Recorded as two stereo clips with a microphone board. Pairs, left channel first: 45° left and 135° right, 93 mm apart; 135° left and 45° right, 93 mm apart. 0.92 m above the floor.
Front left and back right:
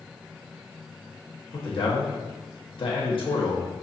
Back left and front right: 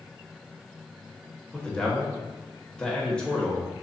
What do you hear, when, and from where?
1.5 s a man speaking: 55° left, 1.2 m